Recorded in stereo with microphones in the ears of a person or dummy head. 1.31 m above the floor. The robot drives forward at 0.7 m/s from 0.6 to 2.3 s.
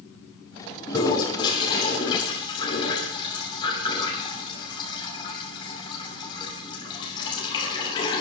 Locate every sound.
0.9 s a toilet flushing: 25° left (ahead or behind), 8 m; by 8.2 s 30° left (ahead or behind), 7.5 m